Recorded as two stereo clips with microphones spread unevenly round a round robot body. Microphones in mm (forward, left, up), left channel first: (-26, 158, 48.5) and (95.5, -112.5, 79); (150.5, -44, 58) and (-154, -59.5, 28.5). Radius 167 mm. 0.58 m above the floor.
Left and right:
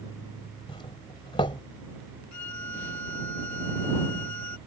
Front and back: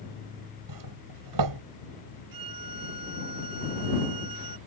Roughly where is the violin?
Behind left.